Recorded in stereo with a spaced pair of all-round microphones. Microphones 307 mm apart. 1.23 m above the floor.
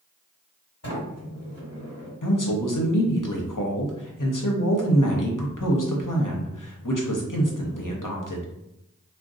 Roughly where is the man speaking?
Left.